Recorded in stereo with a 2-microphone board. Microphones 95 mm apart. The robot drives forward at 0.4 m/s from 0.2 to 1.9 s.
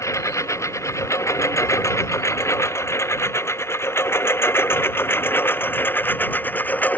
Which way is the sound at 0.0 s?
30° left (ahead or behind).